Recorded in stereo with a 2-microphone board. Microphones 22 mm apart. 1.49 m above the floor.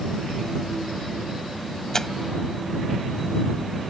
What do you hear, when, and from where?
1.9 s tearing paper: 20° left (ahead or behind)